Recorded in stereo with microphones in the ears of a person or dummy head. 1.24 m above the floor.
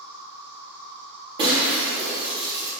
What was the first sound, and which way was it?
An insect, 65° right (ahead or behind).